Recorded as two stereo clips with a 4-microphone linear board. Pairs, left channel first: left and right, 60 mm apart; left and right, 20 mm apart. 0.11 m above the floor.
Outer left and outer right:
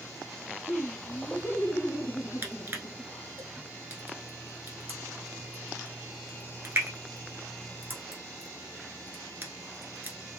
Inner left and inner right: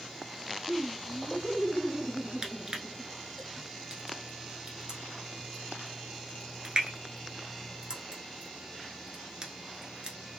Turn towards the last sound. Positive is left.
turn(degrees=-35)  # may be behind; listen again after turning